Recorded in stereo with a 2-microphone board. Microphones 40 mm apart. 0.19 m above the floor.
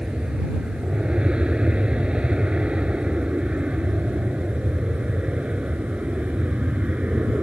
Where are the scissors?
No scissors in this recording.